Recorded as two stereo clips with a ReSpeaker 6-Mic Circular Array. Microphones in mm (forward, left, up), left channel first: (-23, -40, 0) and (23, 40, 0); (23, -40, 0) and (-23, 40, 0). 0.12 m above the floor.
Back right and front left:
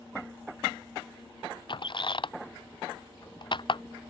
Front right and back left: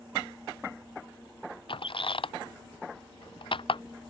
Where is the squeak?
85° right.